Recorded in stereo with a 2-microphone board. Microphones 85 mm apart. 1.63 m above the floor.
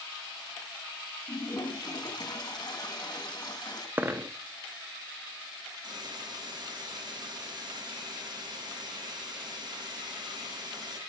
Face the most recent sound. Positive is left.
turn(degrees=-55)  # may be behind; listen again after turning